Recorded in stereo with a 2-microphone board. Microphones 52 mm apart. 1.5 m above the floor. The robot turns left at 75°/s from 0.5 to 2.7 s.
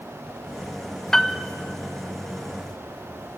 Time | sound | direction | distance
1.1 | a piano | 10° left (ahead or behind) | 0.6 m